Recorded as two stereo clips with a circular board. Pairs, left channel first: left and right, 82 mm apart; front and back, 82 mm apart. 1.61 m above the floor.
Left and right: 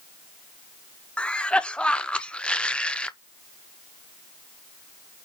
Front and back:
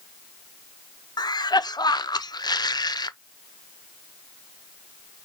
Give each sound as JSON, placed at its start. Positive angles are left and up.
{"t": 1.2, "sound": "a cough", "azimuth_deg": 15, "distance_m": 0.6}